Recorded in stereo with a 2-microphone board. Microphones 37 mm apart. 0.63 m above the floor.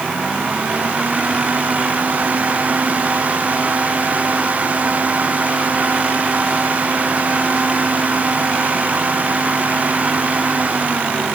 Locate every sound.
Only background noise.